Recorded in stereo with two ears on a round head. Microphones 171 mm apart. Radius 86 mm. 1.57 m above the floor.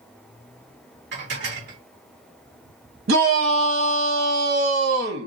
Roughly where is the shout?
Right.